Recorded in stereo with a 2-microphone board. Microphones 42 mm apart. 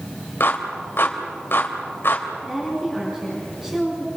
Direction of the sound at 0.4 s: 60° left (ahead or behind).